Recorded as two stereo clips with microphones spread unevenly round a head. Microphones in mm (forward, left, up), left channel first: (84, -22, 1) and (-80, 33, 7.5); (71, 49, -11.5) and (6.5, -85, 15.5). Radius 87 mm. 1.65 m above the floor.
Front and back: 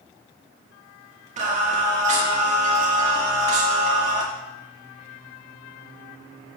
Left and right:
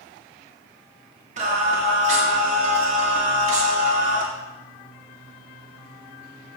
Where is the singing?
150° right, 1.7 m.